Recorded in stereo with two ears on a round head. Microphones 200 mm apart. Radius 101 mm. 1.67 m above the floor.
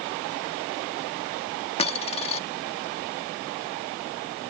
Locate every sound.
1.8 s a dropped coin: 25° left (ahead or behind)